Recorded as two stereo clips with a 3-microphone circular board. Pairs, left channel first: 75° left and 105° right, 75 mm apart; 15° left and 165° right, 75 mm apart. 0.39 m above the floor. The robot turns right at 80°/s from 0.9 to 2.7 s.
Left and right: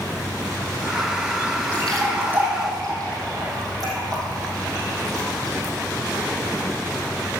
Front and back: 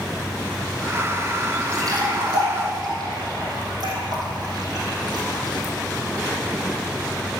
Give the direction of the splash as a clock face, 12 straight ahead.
7 o'clock.